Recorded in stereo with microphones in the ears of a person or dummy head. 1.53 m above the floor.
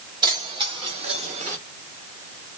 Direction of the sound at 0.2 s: 20° right (ahead or behind).